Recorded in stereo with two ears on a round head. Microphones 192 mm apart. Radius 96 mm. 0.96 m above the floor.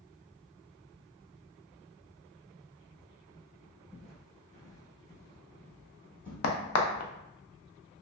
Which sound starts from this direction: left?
A crack, at 6.4 s.